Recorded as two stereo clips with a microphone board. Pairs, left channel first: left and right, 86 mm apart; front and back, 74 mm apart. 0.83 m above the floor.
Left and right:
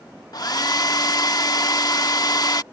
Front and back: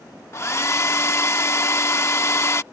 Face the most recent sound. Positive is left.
turn(degrees=50)